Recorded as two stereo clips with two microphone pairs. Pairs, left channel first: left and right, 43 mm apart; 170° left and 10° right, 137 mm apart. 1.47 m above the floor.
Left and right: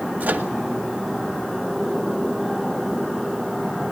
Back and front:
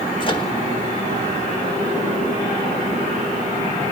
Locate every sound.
0.2 s a microwave: 140° right, 1.7 m